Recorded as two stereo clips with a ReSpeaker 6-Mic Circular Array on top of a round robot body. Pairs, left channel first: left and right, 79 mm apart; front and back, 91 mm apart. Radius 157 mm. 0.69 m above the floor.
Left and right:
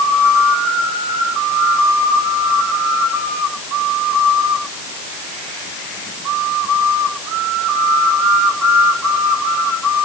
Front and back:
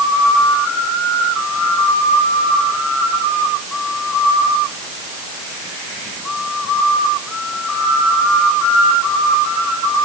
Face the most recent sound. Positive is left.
No sound to turn to.